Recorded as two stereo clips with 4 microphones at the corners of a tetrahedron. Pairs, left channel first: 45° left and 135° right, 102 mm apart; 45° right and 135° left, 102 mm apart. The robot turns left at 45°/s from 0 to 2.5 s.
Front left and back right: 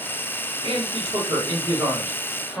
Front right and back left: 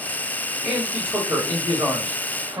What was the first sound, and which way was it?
A man speaking, 140° right.